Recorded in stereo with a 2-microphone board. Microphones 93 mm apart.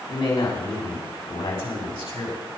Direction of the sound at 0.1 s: 65° left (ahead or behind).